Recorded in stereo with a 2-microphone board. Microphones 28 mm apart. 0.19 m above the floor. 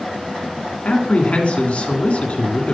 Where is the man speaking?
45° left (ahead or behind), 2 m.